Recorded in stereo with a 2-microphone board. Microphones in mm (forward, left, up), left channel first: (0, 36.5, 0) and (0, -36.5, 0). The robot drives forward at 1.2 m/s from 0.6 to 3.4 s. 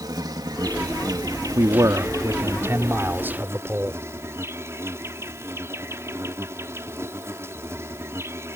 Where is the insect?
70° right (ahead or behind); by 8.6 s 40° right (ahead or behind).